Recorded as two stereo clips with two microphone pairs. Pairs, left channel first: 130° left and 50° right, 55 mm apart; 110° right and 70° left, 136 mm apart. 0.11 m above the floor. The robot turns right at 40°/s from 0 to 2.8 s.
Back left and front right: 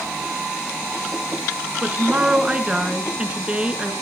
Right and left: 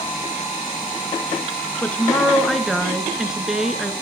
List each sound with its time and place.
1.8 s a woman speaking: 55° right, 1.3 m; by 3.9 s 15° right, 1.3 m